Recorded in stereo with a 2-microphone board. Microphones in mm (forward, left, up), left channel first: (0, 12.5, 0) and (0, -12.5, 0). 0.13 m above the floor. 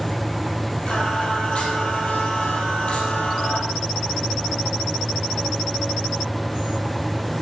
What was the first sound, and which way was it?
Singing, 45° left (ahead or behind).